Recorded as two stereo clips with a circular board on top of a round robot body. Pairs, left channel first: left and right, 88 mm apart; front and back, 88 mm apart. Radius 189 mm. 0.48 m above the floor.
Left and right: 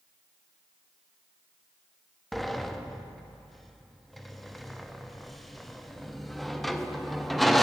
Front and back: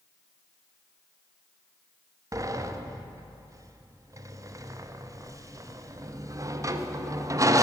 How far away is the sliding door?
About 1.0 m.